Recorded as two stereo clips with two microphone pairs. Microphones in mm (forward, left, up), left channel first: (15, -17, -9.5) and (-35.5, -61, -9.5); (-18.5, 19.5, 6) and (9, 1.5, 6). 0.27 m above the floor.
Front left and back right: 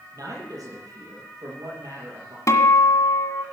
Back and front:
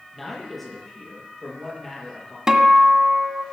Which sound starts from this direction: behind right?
A man speaking, at 0.1 s.